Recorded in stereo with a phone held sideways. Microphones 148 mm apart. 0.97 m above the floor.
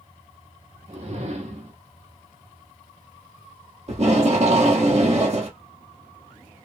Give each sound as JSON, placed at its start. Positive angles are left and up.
{"t": 0.9, "sound": "a whoosh", "side_deg": -45, "distance_m": 0.9}
{"t": 3.9, "sound": "tape being pulled", "side_deg": -45, "distance_m": 1.1}